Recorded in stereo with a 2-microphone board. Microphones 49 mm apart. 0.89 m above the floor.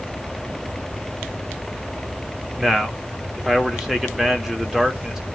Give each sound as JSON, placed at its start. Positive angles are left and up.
{"t": 2.6, "sound": "a man speaking", "side_deg": -10, "distance_m": 1.8}